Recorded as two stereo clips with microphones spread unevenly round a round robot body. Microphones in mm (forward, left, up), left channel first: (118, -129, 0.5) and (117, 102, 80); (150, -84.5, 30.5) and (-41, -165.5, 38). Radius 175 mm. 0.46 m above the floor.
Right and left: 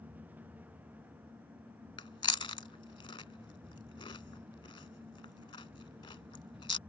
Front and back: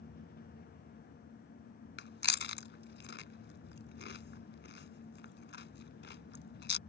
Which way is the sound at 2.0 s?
15° right.